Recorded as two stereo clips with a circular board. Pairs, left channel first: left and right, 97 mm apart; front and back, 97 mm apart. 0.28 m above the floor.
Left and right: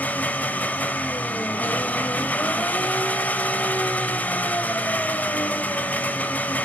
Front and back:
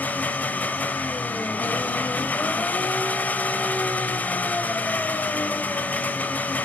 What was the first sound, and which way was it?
An engine running, 45° left.